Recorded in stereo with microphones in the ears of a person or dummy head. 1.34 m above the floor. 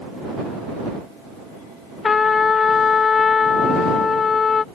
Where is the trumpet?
10° left (ahead or behind).